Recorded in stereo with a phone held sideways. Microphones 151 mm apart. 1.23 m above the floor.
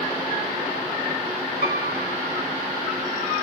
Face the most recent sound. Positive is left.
turn(degrees=-45)  # may be behind; listen again after turning